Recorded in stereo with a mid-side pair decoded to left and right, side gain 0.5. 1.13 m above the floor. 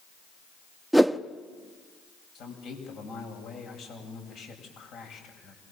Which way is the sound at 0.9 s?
5° right.